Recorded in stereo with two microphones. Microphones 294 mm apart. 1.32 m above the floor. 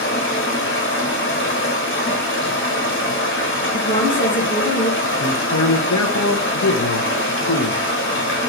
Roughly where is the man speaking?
Left.